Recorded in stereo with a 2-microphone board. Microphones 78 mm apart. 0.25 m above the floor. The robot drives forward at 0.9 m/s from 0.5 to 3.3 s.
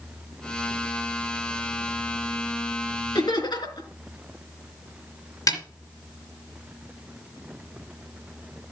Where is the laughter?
70° left (ahead or behind), 4.5 m.